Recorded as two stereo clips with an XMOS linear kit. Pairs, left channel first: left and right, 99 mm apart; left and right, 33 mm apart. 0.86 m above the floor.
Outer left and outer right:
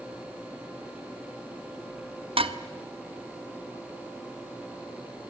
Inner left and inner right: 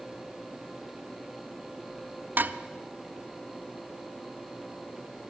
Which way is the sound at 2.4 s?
70° right (ahead or behind).